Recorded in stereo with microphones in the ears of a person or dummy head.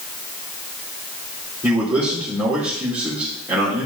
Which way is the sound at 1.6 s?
15° right (ahead or behind).